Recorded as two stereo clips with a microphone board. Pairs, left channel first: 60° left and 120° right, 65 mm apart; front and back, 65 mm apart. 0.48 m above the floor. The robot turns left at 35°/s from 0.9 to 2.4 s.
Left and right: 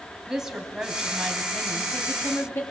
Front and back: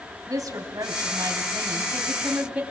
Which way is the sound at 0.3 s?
160° left.